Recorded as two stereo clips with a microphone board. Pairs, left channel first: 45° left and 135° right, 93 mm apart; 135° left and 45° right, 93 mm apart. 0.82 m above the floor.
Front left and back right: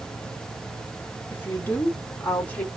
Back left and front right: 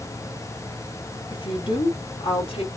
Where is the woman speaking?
110° left, 1.4 m; by 2.7 s 120° left, 2 m.